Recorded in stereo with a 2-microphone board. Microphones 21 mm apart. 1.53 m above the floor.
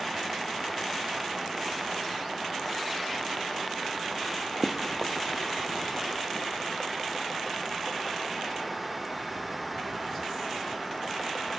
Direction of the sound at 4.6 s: Centre (ahead or behind).